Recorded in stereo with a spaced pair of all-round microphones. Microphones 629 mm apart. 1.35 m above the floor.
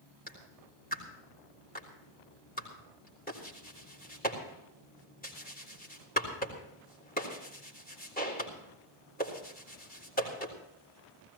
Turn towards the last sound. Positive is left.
turn(degrees=15)  # may be behind; listen again after turning